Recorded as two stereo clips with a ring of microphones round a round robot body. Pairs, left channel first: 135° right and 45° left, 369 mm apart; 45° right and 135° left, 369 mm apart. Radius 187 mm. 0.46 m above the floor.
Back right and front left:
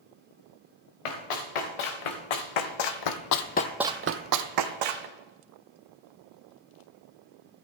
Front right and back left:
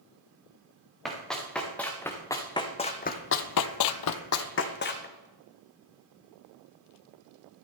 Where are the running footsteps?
135° right, 3 m; by 5.1 s 20° left, 1.7 m.